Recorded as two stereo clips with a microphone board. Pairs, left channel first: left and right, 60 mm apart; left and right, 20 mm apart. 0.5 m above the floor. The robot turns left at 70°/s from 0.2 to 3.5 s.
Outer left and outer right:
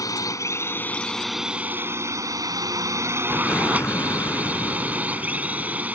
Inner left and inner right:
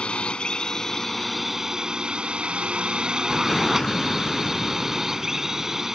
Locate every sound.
0.0 s a drone: 75° left; by 6.0 s 155° right
3.3 s an explosion: 35° left (ahead or behind); by 5.8 s 50° left (ahead or behind)